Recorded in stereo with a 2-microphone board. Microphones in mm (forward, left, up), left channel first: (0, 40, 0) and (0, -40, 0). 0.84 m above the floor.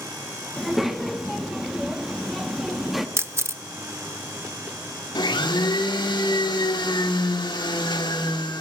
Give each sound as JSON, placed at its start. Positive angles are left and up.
{"t": 0.6, "sound": "a child speaking", "side_deg": -5, "distance_m": 1.2}
{"t": 3.2, "sound": "a camera shutter", "side_deg": -35, "distance_m": 0.6}
{"t": 5.2, "sound": "a blender", "side_deg": 70, "distance_m": 2.0}